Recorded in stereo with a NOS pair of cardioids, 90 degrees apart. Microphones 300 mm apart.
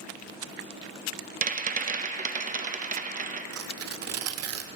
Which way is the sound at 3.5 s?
55° right.